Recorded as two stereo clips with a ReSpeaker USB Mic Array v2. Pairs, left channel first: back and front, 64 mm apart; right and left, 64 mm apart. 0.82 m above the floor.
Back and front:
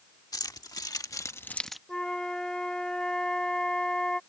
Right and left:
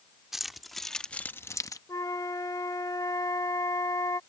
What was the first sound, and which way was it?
Keys jangling, 175° left.